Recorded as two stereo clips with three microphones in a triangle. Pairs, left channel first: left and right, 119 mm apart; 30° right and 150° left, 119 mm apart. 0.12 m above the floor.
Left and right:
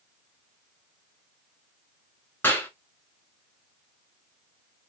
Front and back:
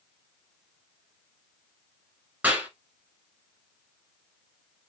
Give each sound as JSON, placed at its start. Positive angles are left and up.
{"t": 2.4, "sound": "a clap", "azimuth_deg": 110, "distance_m": 0.9}